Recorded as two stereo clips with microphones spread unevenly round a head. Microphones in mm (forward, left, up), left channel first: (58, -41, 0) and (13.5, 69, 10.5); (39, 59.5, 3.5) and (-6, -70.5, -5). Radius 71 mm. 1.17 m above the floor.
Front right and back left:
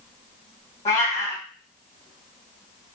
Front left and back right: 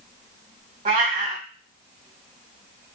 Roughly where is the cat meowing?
Behind right.